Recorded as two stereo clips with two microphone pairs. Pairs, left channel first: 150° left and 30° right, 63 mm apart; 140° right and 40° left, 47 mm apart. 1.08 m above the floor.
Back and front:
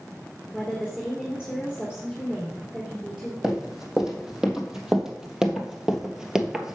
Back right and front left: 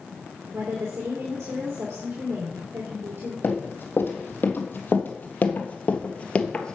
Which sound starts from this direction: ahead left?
A woman speaking, at 0.5 s.